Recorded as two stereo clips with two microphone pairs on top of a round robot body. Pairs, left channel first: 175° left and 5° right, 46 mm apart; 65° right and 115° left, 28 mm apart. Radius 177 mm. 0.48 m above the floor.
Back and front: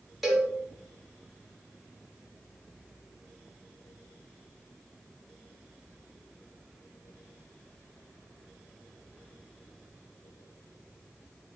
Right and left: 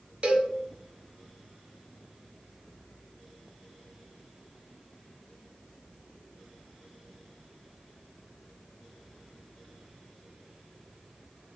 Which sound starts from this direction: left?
A cowbell, at 0.2 s.